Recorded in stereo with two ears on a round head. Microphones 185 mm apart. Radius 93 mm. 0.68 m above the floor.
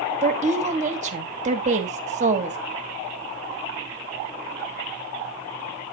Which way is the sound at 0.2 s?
35° right (ahead or behind).